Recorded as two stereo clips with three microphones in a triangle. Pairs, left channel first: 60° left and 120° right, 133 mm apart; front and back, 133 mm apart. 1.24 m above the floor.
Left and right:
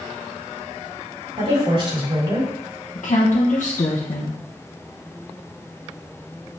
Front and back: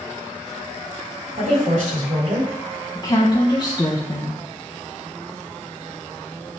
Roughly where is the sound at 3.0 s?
Ahead left.